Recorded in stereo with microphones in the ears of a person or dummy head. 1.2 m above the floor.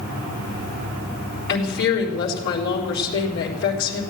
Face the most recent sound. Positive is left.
turn(degrees=55)  # may be behind; listen again after turning